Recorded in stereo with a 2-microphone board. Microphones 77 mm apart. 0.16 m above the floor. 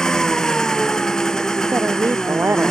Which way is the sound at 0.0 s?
10° left (ahead or behind).